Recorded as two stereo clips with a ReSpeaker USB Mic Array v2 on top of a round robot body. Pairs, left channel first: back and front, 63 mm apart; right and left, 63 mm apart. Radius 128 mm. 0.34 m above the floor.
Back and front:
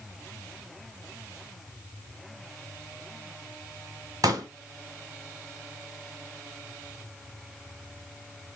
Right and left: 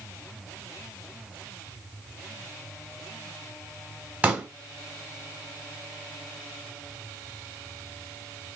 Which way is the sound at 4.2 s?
20° left.